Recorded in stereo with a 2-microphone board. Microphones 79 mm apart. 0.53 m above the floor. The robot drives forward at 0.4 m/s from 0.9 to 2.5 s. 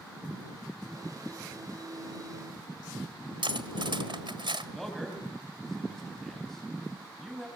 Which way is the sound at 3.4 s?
75° right (ahead or behind).